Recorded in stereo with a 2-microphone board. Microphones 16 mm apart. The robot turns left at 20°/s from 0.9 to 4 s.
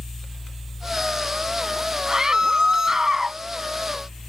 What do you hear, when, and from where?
2.1 s a scream: 50° right (ahead or behind); by 3.4 s 30° right (ahead or behind)